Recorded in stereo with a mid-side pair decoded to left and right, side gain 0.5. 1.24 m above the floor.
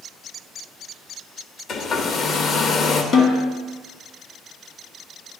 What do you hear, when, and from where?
1.7 s a hair dryer: 55° left, 1.0 m
3.1 s a snare drum: 55° left, 2 m